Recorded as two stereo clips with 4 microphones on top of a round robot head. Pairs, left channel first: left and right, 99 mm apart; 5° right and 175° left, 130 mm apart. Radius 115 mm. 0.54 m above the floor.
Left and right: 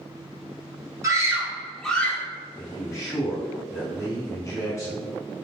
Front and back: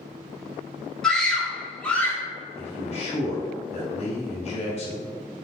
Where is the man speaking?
30° left, 1.8 m.